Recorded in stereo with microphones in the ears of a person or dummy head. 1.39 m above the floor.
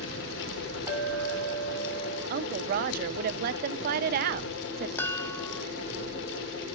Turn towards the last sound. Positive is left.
turn(degrees=10)  # may be behind; listen again after turning